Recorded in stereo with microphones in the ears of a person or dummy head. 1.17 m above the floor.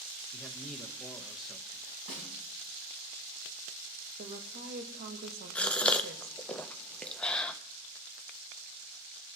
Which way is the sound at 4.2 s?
40° right (ahead or behind).